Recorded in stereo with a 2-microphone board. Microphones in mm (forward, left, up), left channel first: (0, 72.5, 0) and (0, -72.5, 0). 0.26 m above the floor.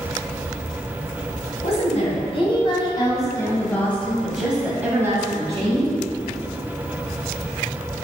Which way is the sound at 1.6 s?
50° left (ahead or behind).